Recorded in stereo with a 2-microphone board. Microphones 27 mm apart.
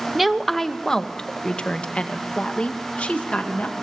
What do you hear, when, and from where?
0.1 s a woman speaking: 5° right (ahead or behind), 1.0 m; by 3.7 s 55° left (ahead or behind), 3.5 m